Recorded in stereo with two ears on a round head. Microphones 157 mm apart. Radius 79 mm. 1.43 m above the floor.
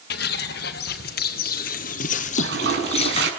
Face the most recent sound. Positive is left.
turn(degrees=-65)  # may be behind; listen again after turning